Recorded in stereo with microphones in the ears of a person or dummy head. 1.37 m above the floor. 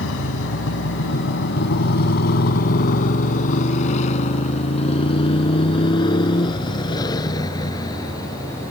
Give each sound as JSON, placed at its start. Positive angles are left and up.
{"t": 0.0, "sound": "a motorcycle", "side_deg": 75}